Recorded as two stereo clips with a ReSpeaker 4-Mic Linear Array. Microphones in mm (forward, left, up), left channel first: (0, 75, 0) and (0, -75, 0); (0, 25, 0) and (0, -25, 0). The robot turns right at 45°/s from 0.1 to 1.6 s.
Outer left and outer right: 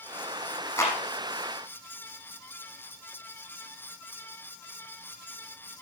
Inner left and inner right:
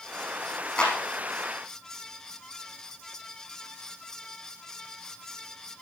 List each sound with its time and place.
0.8 s a clap: 20° left (ahead or behind), 5.5 m; by 1.0 s 10° left (ahead or behind), 5.5 m